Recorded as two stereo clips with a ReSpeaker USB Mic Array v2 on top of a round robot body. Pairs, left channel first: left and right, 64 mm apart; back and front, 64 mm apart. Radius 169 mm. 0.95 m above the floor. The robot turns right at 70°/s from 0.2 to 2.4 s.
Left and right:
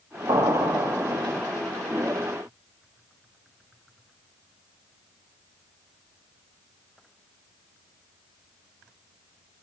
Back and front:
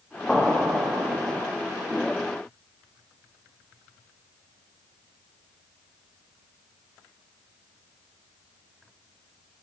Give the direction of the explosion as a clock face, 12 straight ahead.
3 o'clock.